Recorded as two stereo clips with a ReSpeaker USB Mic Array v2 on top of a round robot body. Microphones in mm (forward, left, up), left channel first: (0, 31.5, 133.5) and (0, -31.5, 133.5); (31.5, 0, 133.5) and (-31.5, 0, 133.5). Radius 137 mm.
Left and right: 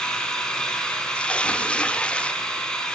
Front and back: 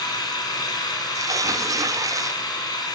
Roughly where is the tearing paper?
Behind.